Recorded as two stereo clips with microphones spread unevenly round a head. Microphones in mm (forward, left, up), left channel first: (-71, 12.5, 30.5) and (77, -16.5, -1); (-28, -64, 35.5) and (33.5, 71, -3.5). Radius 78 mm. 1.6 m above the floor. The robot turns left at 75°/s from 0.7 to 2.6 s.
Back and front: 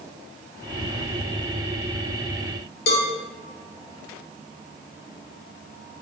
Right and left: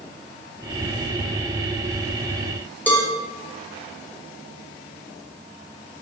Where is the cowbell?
170° left, 0.6 m.